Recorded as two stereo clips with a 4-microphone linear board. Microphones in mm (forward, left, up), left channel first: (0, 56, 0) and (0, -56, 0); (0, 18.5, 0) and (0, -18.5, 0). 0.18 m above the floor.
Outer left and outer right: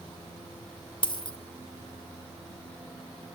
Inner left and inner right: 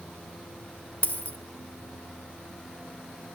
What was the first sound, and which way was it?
A dropped coin, 50° left (ahead or behind).